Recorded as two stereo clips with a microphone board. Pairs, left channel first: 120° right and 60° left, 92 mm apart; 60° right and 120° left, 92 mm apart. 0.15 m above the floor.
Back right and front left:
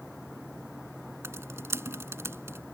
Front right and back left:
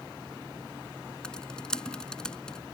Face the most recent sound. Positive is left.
turn(degrees=15)